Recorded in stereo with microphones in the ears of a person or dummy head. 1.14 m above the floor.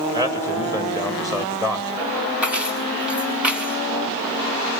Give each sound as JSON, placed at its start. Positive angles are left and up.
{"t": 0.1, "sound": "a man speaking", "side_deg": -10, "distance_m": 1.6}
{"t": 2.4, "sound": "keys jangling", "side_deg": 0, "distance_m": 1.5}